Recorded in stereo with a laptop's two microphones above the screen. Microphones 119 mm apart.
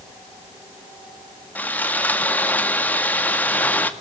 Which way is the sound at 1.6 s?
15° left (ahead or behind).